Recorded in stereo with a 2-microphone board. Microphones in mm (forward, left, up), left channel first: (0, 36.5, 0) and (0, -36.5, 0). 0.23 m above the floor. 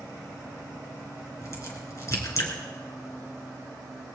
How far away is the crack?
About 3 m.